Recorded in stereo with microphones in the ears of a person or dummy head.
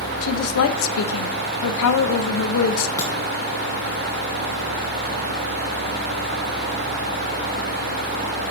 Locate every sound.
0.2 s a woman speaking: 80° left, 0.7 m
3.0 s a crack: 20° left (ahead or behind), 2 m